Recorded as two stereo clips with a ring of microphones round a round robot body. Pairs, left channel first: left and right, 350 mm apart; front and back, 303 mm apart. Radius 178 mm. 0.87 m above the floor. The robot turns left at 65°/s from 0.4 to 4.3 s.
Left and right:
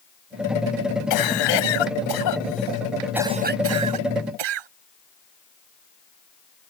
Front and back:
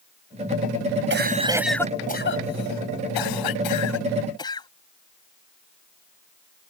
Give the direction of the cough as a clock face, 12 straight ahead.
8 o'clock.